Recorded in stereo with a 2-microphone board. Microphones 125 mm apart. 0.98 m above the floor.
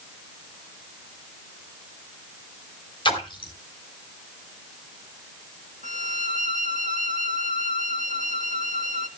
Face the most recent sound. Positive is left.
turn(degrees=-80)